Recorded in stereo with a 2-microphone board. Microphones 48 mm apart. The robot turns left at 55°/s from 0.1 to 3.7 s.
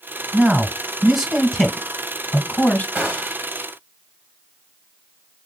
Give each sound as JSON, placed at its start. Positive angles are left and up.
{"t": 0.3, "sound": "a man speaking", "side_deg": -30, "distance_m": 1.6}
{"t": 3.0, "sound": "a gunshot", "side_deg": -40, "distance_m": 1.5}